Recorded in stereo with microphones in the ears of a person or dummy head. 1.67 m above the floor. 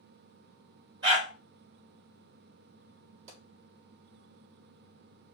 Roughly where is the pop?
Right.